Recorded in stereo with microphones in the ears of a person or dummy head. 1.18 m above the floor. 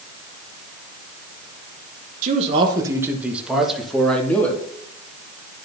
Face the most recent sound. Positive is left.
turn(degrees=5)  # may be behind; listen again after turning